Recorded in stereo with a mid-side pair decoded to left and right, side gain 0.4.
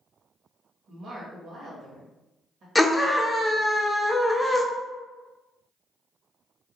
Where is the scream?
10° left, 0.5 m.